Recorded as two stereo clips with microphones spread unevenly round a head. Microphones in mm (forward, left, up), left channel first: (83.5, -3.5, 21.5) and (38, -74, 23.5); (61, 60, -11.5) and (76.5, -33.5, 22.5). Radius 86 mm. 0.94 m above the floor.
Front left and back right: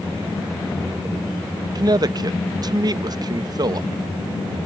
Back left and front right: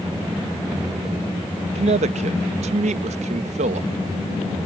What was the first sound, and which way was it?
A man speaking, 85° right.